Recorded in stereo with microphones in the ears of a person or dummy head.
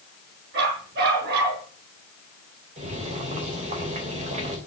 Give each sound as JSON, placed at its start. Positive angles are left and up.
{"t": 0.5, "sound": "a dog barking", "side_deg": -55, "distance_m": 6.5}
{"t": 2.8, "sound": "boiling", "side_deg": -30, "distance_m": 3.0}